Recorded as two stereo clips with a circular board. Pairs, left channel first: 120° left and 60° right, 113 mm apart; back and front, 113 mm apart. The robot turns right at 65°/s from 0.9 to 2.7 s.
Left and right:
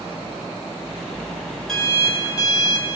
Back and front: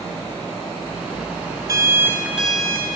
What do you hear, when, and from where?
1.7 s an alarm clock: 35° left, 0.8 m; by 2.9 s 100° left, 0.8 m